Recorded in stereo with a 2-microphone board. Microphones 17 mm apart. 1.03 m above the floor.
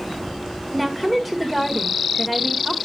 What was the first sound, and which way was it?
A woman speaking, centre (ahead or behind).